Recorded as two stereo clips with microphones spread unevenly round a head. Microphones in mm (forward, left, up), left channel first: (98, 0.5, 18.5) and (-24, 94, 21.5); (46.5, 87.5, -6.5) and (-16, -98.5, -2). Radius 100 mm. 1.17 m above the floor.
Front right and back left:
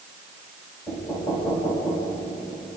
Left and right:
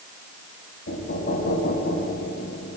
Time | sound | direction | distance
0.9 | knocking | 30° left | 8 m